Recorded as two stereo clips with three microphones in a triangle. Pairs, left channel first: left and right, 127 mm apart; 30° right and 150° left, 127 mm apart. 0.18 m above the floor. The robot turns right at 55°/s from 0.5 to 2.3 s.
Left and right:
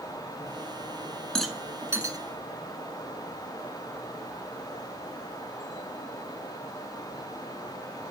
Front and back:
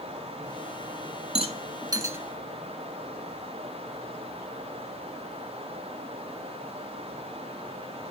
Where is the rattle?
175° left, 0.8 m; by 2.2 s 140° right, 0.8 m.